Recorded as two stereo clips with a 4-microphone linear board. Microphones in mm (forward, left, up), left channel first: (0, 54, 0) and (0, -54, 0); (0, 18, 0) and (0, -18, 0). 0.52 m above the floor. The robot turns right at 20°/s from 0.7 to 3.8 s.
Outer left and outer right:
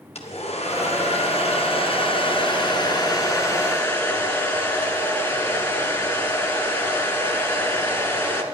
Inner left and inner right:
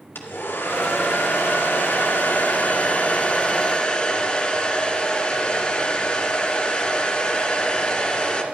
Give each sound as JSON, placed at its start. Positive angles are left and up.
{"t": 0.1, "sound": "a hair dryer", "azimuth_deg": 95, "distance_m": 2.0}